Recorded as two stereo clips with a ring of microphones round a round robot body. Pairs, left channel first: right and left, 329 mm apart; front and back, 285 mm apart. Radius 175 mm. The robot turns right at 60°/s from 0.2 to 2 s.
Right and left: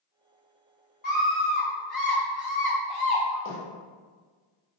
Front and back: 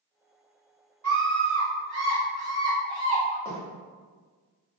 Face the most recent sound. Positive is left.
turn(degrees=-85)